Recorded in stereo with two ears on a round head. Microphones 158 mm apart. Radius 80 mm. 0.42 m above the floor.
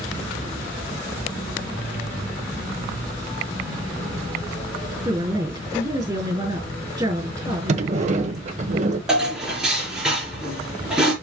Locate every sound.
5.0 s a woman speaking: 20° right (ahead or behind), 4.5 m
7.7 s a sliding door: 40° right (ahead or behind), 1.0 m
9.1 s dishes clattering: 5° right (ahead or behind), 4.5 m